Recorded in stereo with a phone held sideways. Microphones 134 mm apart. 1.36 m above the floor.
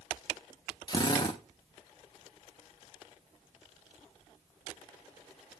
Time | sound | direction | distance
0.9 | a drill | 35° left (ahead or behind) | 1.2 m